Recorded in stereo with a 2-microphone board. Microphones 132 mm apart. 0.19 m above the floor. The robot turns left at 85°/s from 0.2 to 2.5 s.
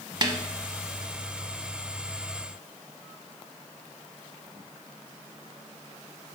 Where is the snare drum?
35° right (ahead or behind), 0.7 m.